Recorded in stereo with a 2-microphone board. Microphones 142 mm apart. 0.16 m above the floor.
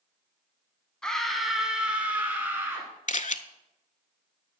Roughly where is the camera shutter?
Left.